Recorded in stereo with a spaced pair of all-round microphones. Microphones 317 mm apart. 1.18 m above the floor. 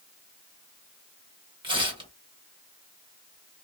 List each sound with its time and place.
1.6 s tearing paper: 15° right (ahead or behind), 1.1 m